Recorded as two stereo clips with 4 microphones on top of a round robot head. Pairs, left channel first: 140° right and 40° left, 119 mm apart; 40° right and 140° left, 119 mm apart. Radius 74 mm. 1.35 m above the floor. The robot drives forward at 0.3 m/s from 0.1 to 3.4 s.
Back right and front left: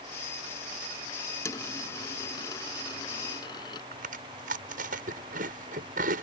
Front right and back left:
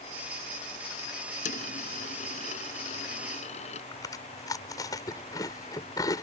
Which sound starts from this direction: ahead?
Chewing, at 3.9 s.